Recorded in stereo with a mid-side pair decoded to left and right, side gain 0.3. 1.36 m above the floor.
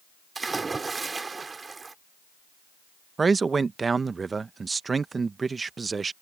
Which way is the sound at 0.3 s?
40° right.